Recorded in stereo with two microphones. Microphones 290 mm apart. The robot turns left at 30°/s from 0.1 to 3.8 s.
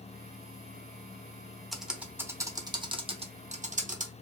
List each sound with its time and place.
1.7 s typing on a keyboard: centre (ahead or behind), 0.7 m; by 4.1 s 25° right (ahead or behind), 0.7 m